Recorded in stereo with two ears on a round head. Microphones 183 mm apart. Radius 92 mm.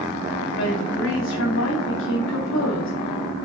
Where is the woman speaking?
70° left (ahead or behind), 2.5 m.